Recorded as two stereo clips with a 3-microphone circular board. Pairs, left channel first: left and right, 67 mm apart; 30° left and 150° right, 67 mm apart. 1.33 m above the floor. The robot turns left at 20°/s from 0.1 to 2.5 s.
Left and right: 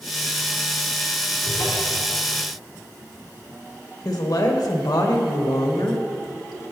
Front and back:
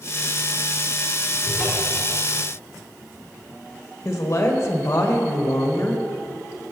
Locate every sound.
1.4 s a cupboard door: 130° left, 3.5 m; by 2.0 s 120° left, 3.5 m
4.0 s a woman speaking: 75° left, 1.3 m